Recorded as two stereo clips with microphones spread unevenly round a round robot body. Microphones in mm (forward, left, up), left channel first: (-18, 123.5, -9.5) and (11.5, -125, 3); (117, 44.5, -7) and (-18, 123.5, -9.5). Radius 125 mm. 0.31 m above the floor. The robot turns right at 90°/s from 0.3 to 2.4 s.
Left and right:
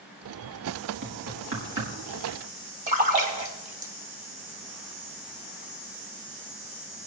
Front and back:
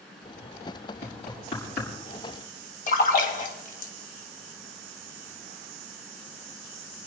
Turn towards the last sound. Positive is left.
turn(degrees=-30)